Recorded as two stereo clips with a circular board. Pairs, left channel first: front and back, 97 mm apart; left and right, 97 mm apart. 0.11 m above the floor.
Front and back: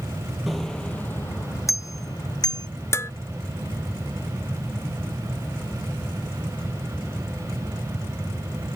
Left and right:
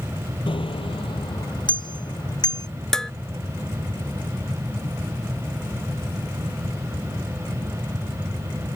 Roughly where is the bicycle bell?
Left.